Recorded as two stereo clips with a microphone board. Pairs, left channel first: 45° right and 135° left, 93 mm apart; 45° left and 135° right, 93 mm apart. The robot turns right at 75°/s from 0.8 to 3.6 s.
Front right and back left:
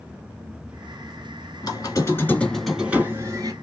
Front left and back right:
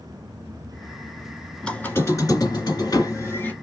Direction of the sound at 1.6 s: 35° right.